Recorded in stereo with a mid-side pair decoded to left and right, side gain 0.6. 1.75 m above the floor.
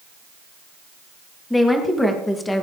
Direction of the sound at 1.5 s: 10° left.